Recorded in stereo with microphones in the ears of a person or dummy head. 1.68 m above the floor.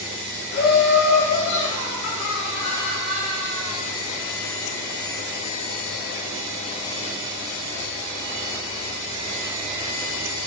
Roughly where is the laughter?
Left.